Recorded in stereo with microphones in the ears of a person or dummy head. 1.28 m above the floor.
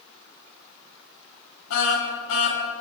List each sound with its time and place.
1.7 s a car horn: 70° left (ahead or behind), 6.5 m